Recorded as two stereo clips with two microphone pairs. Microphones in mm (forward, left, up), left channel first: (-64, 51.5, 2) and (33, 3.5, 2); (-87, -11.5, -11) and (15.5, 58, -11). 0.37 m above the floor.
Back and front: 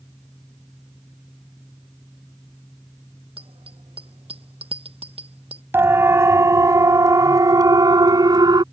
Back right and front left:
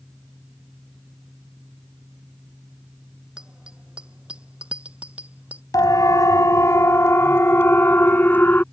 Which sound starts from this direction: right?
A siren, at 5.7 s.